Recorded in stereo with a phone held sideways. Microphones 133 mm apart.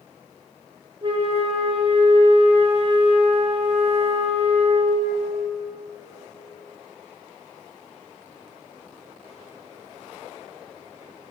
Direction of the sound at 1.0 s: 40° right (ahead or behind).